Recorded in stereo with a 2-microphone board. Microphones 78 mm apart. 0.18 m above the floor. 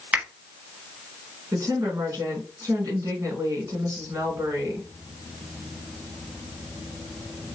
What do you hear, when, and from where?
0.1 s a finger snap: 20° right (ahead or behind), 1.2 m
1.5 s a woman speaking: 50° right (ahead or behind), 1.7 m